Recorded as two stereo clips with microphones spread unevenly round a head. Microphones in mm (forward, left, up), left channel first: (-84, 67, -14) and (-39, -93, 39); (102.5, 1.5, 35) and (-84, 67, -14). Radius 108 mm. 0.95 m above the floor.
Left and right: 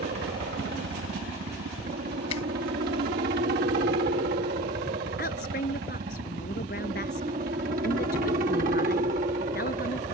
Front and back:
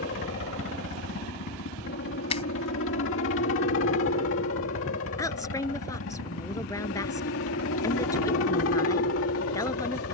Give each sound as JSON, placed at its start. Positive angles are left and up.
{"t": 0.0, "sound": "a helicopter", "azimuth_deg": -40}
{"t": 2.3, "sound": "a finger snap", "azimuth_deg": 40}
{"t": 5.2, "sound": "a woman speaking", "azimuth_deg": 55}